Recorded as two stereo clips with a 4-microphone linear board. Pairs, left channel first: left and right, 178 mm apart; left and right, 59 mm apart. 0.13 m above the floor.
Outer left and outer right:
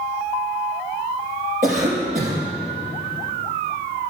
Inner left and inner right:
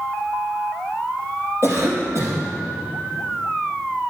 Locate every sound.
1.6 s a cough: 45° right (ahead or behind), 4 m